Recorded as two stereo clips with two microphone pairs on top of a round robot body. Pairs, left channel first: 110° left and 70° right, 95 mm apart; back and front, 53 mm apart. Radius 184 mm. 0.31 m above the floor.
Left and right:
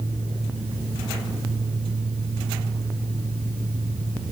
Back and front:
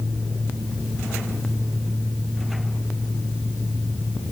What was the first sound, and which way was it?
Only background noise.